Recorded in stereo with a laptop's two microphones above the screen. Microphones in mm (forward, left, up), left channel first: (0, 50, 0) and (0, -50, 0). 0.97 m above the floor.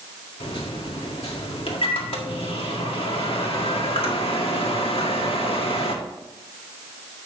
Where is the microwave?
70° left (ahead or behind), 1.7 m.